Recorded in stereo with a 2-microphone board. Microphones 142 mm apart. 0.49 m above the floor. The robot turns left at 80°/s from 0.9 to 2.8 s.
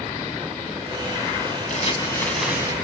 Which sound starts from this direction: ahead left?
Crumpling, at 1.7 s.